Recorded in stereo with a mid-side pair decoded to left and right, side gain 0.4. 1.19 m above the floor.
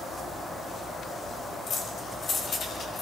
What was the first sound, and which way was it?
Keys jangling, 55° left.